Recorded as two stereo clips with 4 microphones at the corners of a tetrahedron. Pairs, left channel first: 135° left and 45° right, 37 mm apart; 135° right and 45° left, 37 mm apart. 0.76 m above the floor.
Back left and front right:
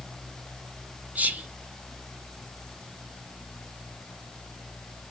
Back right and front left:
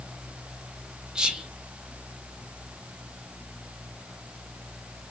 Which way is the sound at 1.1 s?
20° right.